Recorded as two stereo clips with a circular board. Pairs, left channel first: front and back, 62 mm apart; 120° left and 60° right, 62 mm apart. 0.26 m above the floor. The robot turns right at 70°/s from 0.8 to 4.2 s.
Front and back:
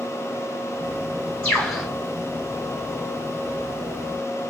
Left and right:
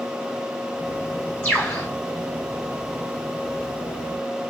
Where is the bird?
60° left, 3 m; by 1.9 s 95° left, 3 m.